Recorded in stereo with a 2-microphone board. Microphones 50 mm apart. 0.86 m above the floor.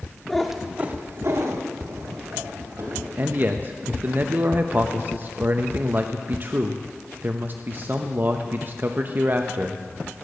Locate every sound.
0.3 s a cat meowing: 5° left (ahead or behind), 1.1 m; by 3.1 s 75° right (ahead or behind), 3 m
3.2 s a man speaking: 40° right (ahead or behind), 0.6 m